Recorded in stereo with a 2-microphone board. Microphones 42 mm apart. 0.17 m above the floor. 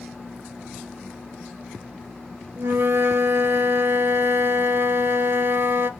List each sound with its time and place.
2.6 s a flute: 70° right (ahead or behind), 0.6 m